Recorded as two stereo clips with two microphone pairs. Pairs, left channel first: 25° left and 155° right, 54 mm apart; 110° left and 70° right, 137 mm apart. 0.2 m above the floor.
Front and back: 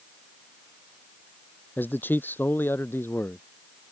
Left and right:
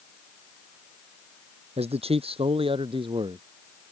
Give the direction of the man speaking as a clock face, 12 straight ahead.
1 o'clock.